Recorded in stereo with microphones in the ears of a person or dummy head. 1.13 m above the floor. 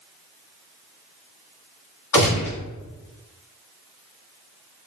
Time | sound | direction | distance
2.1 | a gunshot | 30° left (ahead or behind) | 1.2 m